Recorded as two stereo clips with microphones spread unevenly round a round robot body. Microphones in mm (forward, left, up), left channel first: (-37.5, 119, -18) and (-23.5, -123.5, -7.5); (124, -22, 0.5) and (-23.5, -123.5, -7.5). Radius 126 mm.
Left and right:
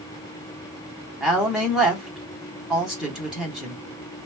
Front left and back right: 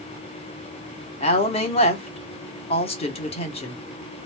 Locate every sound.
1.2 s a woman speaking: 5° left, 1.0 m